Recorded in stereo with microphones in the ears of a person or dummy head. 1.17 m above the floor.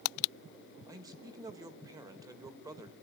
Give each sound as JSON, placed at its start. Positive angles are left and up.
{"t": 0.9, "sound": "a man speaking", "side_deg": -15, "distance_m": 1.5}